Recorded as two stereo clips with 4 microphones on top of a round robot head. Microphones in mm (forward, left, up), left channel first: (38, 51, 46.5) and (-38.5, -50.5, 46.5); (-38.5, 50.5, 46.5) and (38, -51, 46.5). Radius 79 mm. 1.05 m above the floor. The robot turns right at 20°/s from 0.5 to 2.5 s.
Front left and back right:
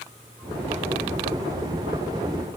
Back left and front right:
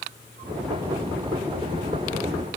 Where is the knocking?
I don't hear knocking.